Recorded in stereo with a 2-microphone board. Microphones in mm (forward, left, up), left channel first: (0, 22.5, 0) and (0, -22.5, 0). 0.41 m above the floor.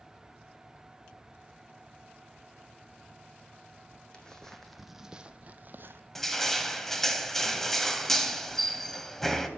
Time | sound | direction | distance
4.1 | footsteps | 20° left (ahead or behind) | 1.5 m
6.2 | crushing | 10° left (ahead or behind) | 1.2 m